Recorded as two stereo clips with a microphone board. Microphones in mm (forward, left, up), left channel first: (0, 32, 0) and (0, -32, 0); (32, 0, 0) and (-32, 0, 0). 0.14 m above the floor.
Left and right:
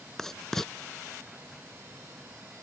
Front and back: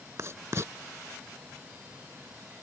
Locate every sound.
0.2 s writing: 170° left